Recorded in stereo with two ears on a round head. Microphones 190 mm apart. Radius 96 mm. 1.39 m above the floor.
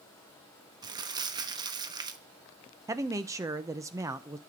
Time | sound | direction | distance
0.8 | crumpling | 20° right (ahead or behind) | 1.1 m
2.9 | a man speaking | 15° right (ahead or behind) | 0.7 m